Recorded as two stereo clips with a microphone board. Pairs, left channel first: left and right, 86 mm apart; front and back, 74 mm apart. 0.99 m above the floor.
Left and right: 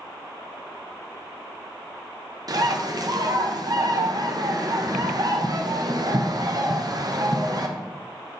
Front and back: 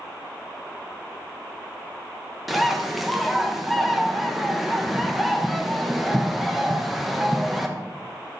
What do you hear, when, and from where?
2.5 s a bird: 90° right, 0.7 m